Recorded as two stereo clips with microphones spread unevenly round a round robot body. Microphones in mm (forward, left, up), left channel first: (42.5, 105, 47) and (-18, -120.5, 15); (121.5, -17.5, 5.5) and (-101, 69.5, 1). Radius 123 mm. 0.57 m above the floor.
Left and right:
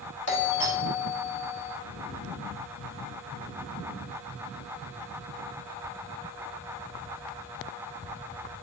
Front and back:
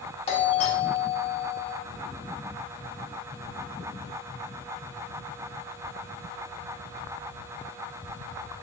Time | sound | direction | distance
0.3 | a doorbell | 40° left | 2 m